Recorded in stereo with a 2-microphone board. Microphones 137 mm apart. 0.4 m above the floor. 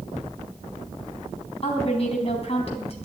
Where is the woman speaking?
45° left (ahead or behind), 3.5 m.